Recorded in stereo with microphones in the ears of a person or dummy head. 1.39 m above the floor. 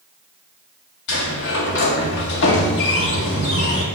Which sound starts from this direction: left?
A sliding door, at 1.1 s.